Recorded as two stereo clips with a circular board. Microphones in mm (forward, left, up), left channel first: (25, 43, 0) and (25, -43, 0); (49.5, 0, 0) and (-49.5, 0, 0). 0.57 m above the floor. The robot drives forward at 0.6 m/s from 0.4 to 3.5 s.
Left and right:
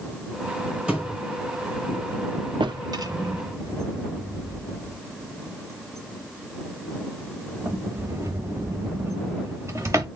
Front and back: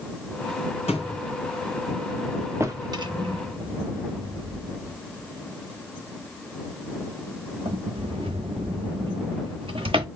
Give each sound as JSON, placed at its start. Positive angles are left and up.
{"t": 0.9, "sound": "a thud", "azimuth_deg": -15, "distance_m": 2.5}
{"t": 2.6, "sound": "a drawer", "azimuth_deg": -115, "distance_m": 0.6}